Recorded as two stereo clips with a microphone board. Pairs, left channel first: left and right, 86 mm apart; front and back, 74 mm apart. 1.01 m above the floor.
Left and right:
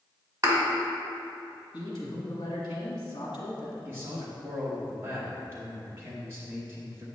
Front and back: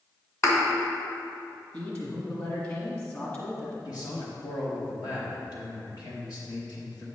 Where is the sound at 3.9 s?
30° right, 1.1 m.